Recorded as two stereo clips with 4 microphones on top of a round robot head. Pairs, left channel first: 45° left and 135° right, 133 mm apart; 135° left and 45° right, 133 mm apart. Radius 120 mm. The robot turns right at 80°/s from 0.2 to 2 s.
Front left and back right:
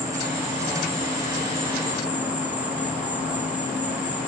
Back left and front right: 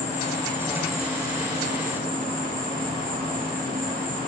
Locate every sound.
0.0 s an insect: 160° left, 1.9 m; by 4.3 s 55° right, 1.9 m